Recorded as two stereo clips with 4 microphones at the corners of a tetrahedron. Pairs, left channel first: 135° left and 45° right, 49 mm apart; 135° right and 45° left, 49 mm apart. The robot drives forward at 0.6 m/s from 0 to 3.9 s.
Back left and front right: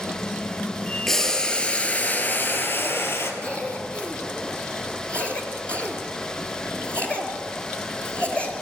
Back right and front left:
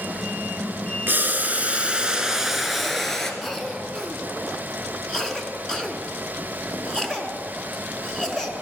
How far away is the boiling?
About 1.2 m.